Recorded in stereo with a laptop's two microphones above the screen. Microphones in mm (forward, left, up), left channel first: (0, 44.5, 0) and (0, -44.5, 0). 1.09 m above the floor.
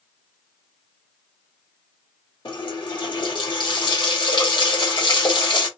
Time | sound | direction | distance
2.5 | a running tap | 60° left (ahead or behind) | 1.1 m